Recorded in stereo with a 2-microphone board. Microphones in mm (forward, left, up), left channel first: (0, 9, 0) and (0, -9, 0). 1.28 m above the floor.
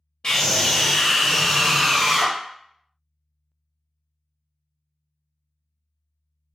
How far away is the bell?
I don't hear a bell.